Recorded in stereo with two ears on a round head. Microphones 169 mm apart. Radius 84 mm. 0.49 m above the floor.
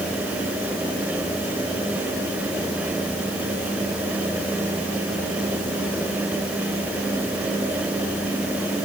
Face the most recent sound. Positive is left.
No sound to turn to.